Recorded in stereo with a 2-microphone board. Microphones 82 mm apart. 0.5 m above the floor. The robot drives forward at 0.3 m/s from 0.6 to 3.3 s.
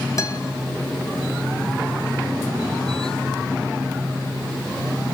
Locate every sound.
0.2 s a guitar: 40° left (ahead or behind), 2.5 m